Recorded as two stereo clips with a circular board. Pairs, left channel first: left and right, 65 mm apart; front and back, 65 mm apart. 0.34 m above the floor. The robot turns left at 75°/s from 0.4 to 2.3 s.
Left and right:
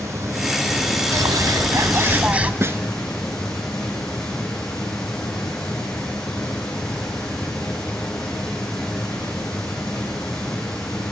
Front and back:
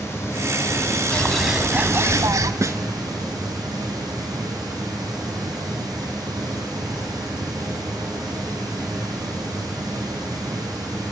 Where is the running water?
45° right, 9 m; by 11.1 s 170° left, 9 m.